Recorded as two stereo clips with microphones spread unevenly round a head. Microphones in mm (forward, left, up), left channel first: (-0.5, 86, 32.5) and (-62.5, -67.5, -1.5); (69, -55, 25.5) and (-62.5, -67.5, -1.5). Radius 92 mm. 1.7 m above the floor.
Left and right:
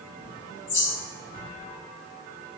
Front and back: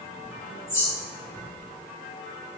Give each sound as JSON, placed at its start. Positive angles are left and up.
{"t": 0.2, "sound": "a bird", "azimuth_deg": 80, "distance_m": 4.0}